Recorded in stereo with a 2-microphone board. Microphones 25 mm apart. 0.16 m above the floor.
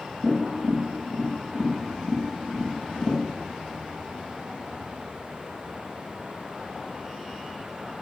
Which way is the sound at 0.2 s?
45° right (ahead or behind).